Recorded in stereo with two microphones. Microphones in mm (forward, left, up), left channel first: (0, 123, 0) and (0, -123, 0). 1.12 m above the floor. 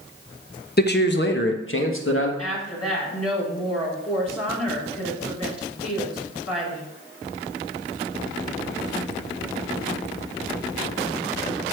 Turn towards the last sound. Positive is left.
turn(degrees=80)